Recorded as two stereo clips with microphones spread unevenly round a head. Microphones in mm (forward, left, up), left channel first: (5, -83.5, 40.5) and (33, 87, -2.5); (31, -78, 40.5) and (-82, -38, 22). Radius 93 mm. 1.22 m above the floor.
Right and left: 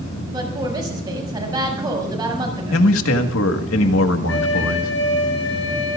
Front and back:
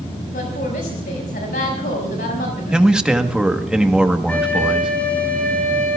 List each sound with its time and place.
0.3 s a woman speaking: 15° left, 6 m
2.7 s a man speaking: 115° right, 1.6 m
4.3 s a flute: 100° right, 5 m